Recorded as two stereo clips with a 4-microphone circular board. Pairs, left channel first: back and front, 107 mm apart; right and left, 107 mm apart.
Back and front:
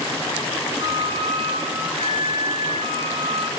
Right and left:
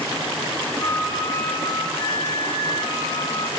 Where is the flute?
35° right, 6 m.